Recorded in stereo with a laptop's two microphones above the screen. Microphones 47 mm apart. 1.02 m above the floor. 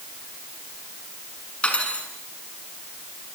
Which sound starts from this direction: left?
Cutlery clinking, at 1.6 s.